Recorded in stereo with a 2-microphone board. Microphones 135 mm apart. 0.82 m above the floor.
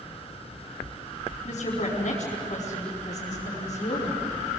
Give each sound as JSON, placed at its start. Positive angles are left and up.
{"t": 1.4, "sound": "a woman speaking", "side_deg": 60, "distance_m": 5.5}